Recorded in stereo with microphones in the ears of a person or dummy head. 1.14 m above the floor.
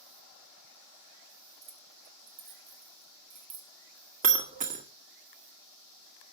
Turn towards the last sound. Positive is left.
turn(degrees=-35)  # may be behind; listen again after turning